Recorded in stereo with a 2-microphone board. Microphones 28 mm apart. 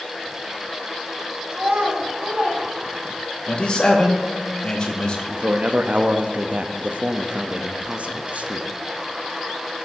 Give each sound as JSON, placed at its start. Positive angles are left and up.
{"t": 1.5, "sound": "a child speaking", "side_deg": -85, "distance_m": 2.0}
{"t": 3.5, "sound": "a man speaking", "side_deg": 35, "distance_m": 1.4}
{"t": 5.3, "sound": "a man speaking", "side_deg": -55, "distance_m": 0.6}